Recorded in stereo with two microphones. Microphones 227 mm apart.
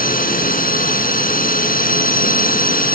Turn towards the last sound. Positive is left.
turn(degrees=40)  # may be behind; listen again after turning